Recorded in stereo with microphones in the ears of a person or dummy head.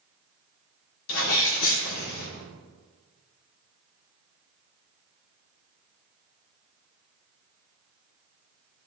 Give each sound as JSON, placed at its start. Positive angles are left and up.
{"t": 1.1, "sound": "a sneeze", "side_deg": 70, "distance_m": 2.5}